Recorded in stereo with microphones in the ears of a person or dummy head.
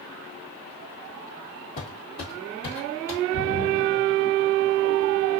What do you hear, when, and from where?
1.8 s footsteps: 30° left (ahead or behind), 1.8 m; by 3.2 s 20° left (ahead or behind), 1.9 m
3.3 s a splash: 55° left (ahead or behind), 1.7 m